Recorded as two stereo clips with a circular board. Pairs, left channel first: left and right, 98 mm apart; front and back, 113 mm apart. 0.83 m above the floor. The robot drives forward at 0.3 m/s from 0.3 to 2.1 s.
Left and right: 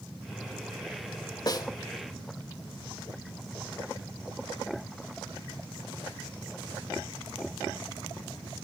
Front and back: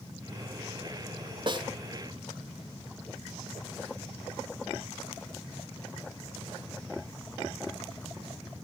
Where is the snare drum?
135° left, 1.1 m; by 1.7 s 140° left, 1.1 m.